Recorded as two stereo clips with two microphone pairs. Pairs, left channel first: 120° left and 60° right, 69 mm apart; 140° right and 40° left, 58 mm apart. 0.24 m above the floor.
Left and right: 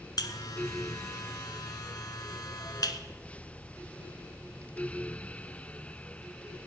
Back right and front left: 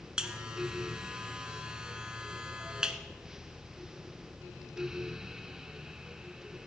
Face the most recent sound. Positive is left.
turn(degrees=115)